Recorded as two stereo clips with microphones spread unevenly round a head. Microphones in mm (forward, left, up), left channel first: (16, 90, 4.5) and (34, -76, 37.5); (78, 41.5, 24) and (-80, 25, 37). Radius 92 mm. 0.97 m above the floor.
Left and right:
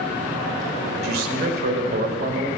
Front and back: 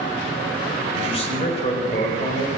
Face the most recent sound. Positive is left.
turn(degrees=-50)